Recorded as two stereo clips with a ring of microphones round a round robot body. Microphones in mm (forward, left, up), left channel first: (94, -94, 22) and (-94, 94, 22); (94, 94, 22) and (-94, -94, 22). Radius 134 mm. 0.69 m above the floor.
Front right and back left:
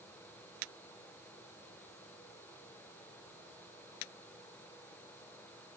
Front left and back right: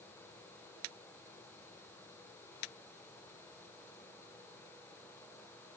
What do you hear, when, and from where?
Only background noise.